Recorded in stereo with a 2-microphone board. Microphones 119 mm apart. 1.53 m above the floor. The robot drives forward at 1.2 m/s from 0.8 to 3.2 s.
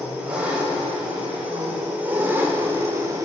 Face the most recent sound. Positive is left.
turn(degrees=-30)  # may be behind; listen again after turning